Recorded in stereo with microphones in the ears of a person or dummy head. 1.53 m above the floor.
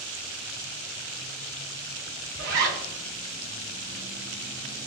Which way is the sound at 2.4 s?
60° right (ahead or behind).